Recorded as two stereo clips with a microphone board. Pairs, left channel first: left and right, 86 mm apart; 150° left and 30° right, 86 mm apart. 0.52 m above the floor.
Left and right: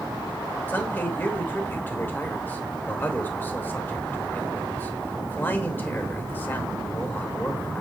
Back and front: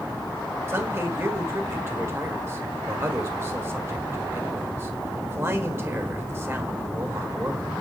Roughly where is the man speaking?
Ahead left.